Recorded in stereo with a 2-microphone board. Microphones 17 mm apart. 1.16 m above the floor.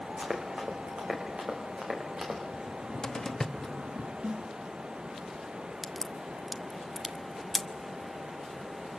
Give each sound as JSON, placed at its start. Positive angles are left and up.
{"t": 0.2, "sound": "running footsteps", "side_deg": -75, "distance_m": 5.0}
{"t": 2.5, "sound": "a cupboard door", "side_deg": 30, "distance_m": 1.0}
{"t": 4.2, "sound": "a snare drum", "side_deg": -75, "distance_m": 0.9}
{"t": 5.8, "sound": "a crack", "side_deg": -5, "distance_m": 1.0}